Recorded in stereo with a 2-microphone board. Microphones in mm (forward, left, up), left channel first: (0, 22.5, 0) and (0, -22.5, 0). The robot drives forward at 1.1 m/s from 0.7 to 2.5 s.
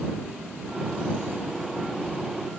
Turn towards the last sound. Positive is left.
No sound to turn to.